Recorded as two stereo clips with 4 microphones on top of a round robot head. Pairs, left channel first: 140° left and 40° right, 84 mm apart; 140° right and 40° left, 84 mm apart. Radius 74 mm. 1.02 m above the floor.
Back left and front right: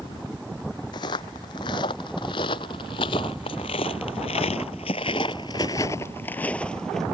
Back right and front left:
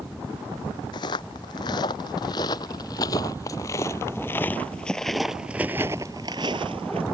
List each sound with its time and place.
0.9 s footsteps: straight behind; by 7.0 s 55° left